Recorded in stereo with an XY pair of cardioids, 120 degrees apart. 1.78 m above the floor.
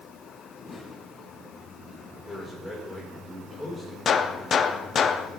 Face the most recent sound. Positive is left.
turn(degrees=40)